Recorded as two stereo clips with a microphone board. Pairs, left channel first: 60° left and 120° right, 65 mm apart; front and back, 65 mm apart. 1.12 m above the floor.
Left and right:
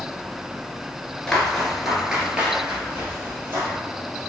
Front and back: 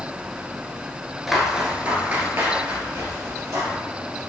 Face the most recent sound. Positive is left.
turn(degrees=-170)